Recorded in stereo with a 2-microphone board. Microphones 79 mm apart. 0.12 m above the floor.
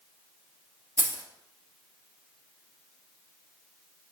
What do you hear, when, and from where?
1.0 s keys jangling: 40° right (ahead or behind), 1.5 m